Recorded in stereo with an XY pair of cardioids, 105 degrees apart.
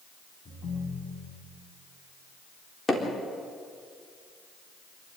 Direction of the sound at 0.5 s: 50° left.